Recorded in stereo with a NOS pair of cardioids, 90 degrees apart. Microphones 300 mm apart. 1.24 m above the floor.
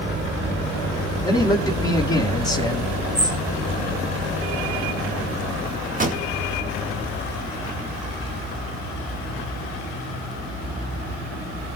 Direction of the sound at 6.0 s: 30° right.